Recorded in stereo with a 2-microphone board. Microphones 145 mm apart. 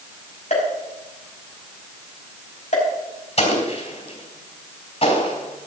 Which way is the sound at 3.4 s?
50° left (ahead or behind).